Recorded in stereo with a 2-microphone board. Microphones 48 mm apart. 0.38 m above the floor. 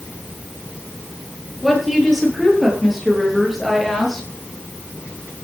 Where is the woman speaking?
Centre (ahead or behind), 9.5 m.